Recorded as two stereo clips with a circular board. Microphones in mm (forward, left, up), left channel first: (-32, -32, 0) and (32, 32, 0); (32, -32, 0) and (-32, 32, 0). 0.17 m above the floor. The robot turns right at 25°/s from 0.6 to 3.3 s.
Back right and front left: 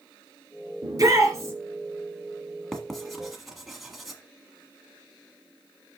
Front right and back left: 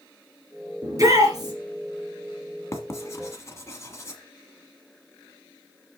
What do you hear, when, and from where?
0.8 s a shout: 85° left, 2.5 m; by 1.5 s 100° left, 2.5 m
2.7 s writing: 55° right, 1.4 m; by 4.2 s 40° right, 1.4 m